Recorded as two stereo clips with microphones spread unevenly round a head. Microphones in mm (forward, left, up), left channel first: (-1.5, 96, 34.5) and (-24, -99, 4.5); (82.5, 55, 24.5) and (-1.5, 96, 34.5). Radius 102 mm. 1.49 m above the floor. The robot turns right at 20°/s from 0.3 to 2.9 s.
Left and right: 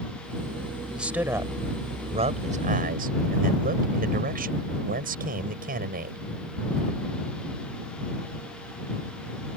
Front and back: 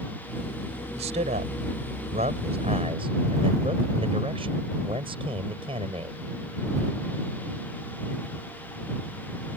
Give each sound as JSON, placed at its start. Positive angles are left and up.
{"t": 0.9, "sound": "a man speaking", "azimuth_deg": 175}